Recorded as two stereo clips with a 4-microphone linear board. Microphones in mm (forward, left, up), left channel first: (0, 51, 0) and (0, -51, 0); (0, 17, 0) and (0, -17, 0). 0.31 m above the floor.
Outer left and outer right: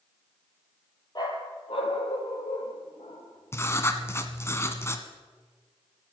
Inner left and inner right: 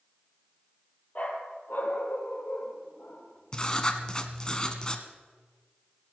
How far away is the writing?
About 1.3 m.